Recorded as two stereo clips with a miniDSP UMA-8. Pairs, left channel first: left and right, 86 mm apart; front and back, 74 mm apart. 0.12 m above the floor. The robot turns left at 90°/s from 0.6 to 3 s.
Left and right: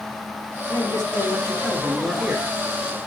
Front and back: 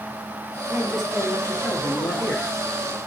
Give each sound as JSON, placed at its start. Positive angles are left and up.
{"t": 0.7, "sound": "a man speaking", "azimuth_deg": 120, "distance_m": 2.5}